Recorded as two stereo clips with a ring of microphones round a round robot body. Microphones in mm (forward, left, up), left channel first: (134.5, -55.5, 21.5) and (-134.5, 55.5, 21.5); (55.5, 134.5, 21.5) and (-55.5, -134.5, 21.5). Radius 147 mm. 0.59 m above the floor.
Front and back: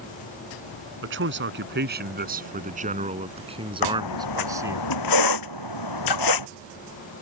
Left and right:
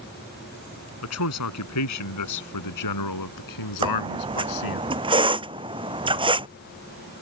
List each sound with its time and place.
1.0 s a man speaking: 105° left; by 4.8 s 75° left
3.8 s a squeak: 40° right